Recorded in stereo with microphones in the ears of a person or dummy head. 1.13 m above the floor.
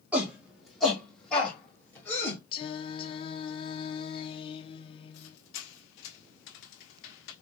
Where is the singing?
25° left (ahead or behind), 0.7 m.